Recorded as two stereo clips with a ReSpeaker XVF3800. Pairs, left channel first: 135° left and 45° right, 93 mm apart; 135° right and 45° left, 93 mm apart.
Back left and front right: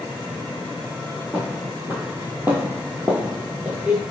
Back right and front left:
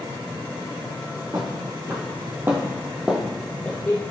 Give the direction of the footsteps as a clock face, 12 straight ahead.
11 o'clock.